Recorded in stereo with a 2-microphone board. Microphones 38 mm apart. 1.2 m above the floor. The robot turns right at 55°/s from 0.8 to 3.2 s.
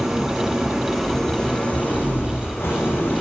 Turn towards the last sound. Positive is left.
turn(degrees=125)